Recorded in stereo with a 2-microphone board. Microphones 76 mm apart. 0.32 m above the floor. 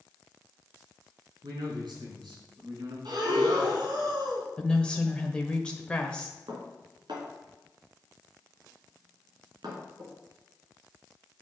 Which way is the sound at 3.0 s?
65° right (ahead or behind).